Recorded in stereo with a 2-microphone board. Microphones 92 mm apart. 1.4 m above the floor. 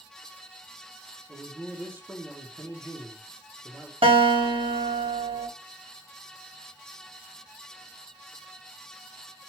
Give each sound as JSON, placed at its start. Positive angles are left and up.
{"t": 1.3, "sound": "a man speaking", "side_deg": -15, "distance_m": 1.1}
{"t": 4.0, "sound": "a guitar", "side_deg": -75, "distance_m": 2.0}